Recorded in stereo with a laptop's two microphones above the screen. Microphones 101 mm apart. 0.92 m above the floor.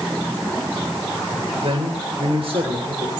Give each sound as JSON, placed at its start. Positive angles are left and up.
{"t": 1.6, "sound": "a man speaking", "side_deg": -80, "distance_m": 3.0}